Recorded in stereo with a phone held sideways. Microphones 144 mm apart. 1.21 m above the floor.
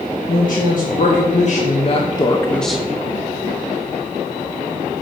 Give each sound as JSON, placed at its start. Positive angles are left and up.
{"t": 0.3, "sound": "a woman speaking", "side_deg": 65, "distance_m": 1.4}